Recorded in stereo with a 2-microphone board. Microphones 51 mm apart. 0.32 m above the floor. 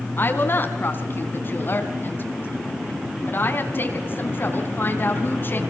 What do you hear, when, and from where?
0.2 s a woman speaking: 45° left (ahead or behind), 3 m